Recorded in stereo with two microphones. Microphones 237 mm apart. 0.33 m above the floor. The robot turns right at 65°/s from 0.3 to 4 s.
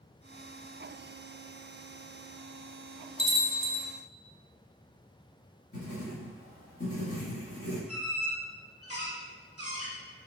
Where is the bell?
30° right, 0.7 m; by 3.9 s 15° left, 0.7 m.